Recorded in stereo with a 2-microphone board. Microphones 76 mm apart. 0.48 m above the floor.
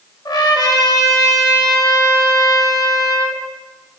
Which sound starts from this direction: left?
A trumpet, at 0.2 s.